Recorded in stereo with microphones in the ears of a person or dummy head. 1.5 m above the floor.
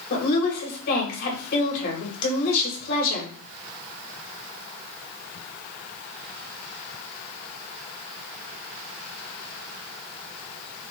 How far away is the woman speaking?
About 2.5 m.